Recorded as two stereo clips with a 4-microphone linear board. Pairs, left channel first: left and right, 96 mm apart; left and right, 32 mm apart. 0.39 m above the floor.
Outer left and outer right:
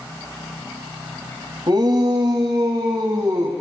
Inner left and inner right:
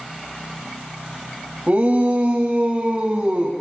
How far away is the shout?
About 2.5 m.